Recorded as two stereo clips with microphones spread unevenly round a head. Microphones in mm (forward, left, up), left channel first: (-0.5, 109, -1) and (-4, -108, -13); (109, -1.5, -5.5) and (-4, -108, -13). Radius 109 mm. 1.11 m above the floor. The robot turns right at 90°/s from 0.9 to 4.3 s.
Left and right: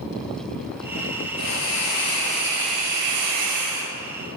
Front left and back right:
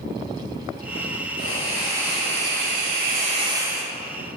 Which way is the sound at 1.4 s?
95° left.